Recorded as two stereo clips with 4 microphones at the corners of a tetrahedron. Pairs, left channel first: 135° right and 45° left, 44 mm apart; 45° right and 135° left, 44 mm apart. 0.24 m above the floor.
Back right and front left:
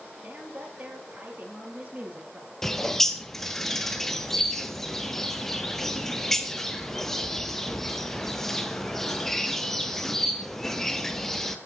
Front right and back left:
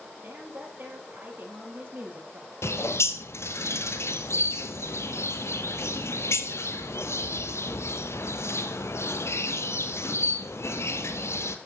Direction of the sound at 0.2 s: 90° left.